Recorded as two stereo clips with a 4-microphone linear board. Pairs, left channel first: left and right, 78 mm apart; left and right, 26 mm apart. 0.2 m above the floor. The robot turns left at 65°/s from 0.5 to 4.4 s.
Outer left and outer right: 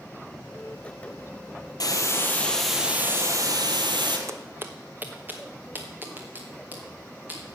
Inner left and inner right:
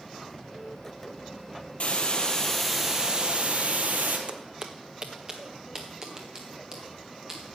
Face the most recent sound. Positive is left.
turn(degrees=-25)  # may be behind; listen again after turning